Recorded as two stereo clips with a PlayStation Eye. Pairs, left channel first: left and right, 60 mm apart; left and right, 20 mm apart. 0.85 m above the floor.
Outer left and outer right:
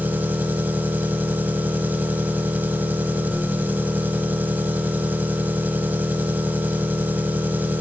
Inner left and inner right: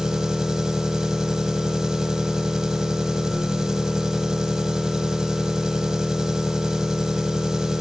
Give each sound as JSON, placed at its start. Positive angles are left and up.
{"t": 0.0, "sound": "an engine running", "side_deg": -30, "distance_m": 1.3}